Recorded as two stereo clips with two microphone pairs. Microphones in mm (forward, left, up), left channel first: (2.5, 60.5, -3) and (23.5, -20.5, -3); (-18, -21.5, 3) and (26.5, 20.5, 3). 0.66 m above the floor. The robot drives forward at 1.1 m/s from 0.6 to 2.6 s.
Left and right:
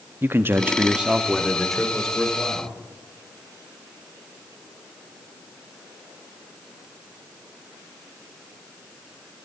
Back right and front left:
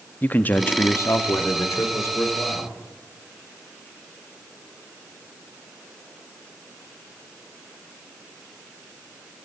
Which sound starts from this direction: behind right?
A man speaking, at 0.2 s.